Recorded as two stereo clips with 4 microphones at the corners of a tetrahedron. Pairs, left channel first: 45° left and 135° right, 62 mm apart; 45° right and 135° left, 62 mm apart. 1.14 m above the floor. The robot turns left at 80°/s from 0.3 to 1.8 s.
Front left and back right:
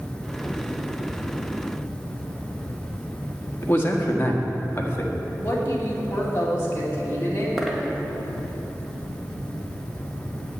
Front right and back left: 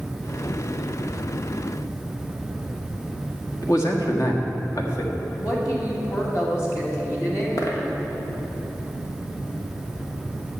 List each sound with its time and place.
3.6 s a man speaking: 10° right, 1.6 m
5.4 s a woman speaking: 10° right, 2.5 m
7.6 s a dropped coin: 45° right, 1.7 m